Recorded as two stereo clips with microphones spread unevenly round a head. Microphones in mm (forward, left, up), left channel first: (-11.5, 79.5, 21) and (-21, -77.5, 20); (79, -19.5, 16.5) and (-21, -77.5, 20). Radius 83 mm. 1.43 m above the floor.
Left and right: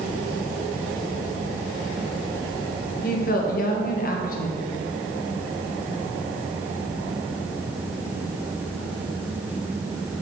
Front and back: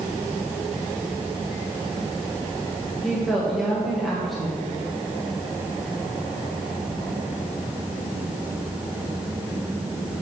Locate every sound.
3.0 s a woman speaking: 120° left, 1.5 m